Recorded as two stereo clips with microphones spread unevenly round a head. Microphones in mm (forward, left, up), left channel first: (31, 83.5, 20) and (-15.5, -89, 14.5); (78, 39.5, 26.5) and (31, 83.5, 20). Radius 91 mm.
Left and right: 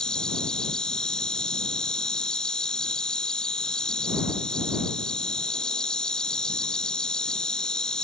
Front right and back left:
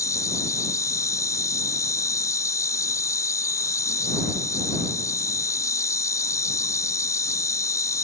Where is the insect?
10° right.